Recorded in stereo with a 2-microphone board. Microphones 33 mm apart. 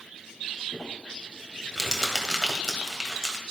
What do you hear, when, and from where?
0.7 s crumpling: 5° right (ahead or behind), 2 m